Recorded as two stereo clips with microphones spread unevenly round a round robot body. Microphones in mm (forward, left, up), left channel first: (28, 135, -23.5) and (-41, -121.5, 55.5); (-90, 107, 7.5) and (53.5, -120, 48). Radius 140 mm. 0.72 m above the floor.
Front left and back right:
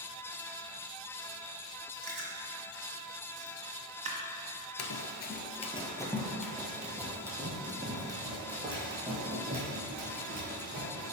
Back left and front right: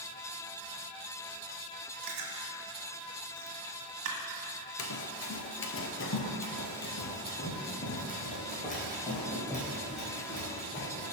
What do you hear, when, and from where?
2.0 s chewing: 35° right, 1.5 m
4.8 s running footsteps: 100° left, 0.8 m; by 11.1 s 170° right, 4.5 m